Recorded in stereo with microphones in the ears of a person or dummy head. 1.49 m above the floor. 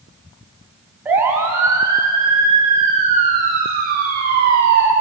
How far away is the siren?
About 4 m.